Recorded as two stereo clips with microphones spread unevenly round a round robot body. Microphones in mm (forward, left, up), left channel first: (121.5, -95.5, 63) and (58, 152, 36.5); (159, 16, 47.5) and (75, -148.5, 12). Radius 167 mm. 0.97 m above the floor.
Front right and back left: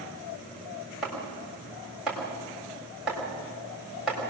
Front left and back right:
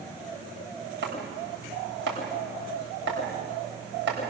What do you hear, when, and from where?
1.0 s chopping: 165° right, 3.5 m